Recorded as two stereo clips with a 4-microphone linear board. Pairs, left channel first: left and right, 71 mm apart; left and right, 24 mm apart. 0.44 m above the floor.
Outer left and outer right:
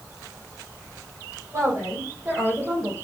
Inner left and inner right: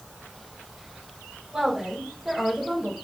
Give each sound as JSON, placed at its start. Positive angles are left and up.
{"t": 1.5, "sound": "a woman speaking", "side_deg": -40, "distance_m": 2.0}